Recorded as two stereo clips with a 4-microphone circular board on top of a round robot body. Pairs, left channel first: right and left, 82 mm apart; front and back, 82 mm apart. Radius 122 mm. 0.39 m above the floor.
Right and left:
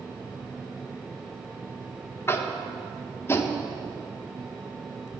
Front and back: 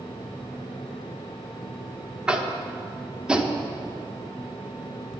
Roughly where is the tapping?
Right.